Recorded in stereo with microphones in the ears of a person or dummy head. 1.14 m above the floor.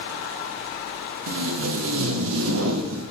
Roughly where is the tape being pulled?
Right.